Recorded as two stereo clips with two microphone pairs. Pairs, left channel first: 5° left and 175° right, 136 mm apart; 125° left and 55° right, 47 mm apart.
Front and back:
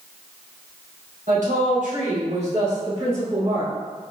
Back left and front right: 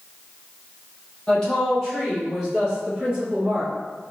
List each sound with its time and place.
1.3 s a woman speaking: 160° right, 1.6 m; by 3.7 s 130° right, 3 m